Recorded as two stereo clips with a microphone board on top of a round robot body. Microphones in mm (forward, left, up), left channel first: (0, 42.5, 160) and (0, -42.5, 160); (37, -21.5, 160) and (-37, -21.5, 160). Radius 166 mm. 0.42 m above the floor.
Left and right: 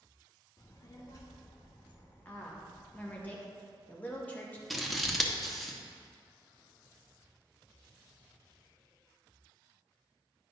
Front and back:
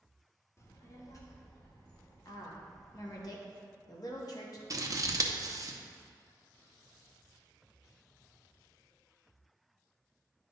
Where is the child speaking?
50° left, 0.9 m; by 3.2 s 40° left, 3 m.